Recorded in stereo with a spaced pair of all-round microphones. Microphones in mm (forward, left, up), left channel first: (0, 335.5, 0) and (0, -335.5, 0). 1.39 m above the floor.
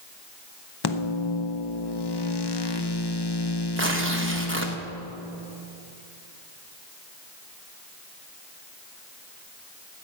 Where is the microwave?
40° left (ahead or behind), 0.7 m.